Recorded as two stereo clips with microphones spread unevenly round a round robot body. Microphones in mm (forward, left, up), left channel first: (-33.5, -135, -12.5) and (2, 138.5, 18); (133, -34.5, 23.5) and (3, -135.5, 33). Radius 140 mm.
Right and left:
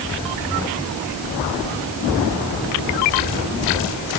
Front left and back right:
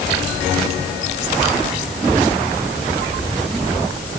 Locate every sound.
Only background noise.